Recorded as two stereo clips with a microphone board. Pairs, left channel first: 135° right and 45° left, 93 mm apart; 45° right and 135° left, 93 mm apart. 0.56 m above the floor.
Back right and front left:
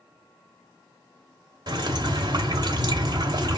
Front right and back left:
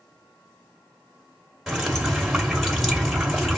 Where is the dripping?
50° left, 1.6 m.